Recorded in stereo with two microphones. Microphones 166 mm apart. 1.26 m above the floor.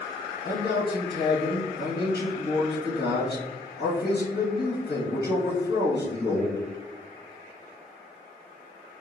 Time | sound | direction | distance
0.4 | a man speaking | 80° left | 1.7 m